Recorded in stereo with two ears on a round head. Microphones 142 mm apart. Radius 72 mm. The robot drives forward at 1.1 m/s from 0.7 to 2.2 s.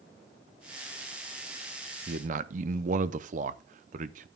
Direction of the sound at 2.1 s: 50° right (ahead or behind).